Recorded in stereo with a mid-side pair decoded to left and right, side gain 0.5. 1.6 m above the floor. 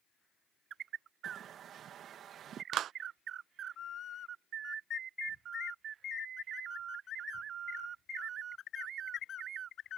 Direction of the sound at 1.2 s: 60° right.